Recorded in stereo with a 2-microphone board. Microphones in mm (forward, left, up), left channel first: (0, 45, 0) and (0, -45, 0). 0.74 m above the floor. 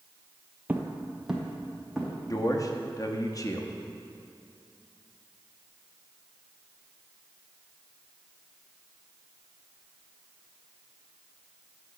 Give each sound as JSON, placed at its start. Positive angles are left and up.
{"t": 0.7, "sound": "footsteps", "side_deg": -15, "distance_m": 0.9}
{"t": 2.3, "sound": "a man speaking", "side_deg": 40, "distance_m": 0.9}